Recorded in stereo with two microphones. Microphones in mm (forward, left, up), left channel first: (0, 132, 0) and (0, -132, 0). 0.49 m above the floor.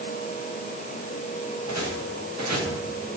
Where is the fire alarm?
No fire alarm in this recording.